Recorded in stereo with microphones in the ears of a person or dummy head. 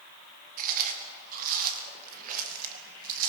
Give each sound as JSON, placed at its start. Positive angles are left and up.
{"t": 0.6, "sound": "chewing", "side_deg": -50, "distance_m": 2.0}